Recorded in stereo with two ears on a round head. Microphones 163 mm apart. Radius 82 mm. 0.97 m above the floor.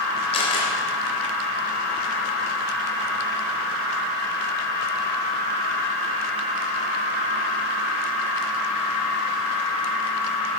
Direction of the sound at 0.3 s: 30° left (ahead or behind).